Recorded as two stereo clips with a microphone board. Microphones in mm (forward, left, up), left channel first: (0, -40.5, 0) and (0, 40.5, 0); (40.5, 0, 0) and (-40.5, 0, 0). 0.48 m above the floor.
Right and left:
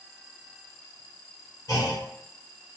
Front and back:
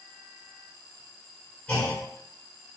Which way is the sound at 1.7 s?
70° right.